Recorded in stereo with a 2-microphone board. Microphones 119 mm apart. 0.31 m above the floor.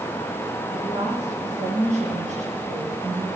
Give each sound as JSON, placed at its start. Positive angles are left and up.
{"t": 0.7, "sound": "a woman speaking", "side_deg": -70, "distance_m": 6.0}